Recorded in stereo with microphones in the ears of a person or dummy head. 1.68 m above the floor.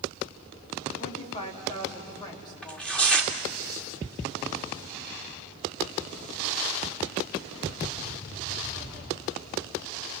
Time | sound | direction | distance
1.0 | a woman speaking | 40° left (ahead or behind) | 3 m
2.6 | tearing paper | 5° left (ahead or behind) | 1.7 m